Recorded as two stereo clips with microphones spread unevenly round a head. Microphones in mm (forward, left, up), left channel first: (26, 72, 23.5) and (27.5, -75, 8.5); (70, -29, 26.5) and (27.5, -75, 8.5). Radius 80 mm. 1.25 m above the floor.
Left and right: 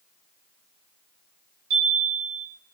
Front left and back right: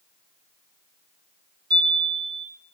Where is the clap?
No clap in this recording.